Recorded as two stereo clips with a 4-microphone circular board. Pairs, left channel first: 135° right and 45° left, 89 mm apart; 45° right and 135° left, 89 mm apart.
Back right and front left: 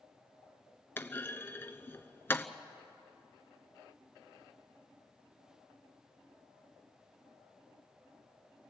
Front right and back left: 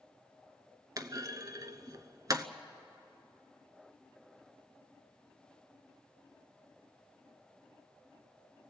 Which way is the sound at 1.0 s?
170° left.